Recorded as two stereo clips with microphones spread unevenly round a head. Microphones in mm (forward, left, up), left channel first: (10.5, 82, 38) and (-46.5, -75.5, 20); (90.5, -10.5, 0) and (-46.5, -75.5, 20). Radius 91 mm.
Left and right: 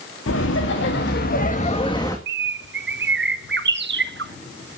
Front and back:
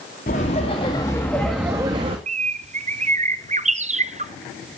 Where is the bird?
110° right, 0.6 m.